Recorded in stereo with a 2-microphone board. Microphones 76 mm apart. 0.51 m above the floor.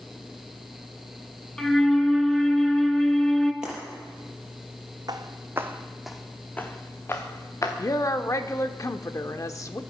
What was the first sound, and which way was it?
A flute, 5° left (ahead or behind).